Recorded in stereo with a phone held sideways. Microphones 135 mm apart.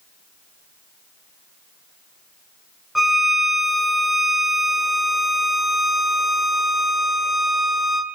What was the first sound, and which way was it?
A violin, centre (ahead or behind).